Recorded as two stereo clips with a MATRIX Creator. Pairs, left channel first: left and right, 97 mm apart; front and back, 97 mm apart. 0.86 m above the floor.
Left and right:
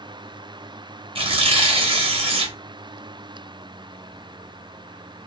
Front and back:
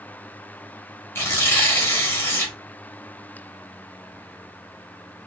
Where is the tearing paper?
65° right, 0.8 m.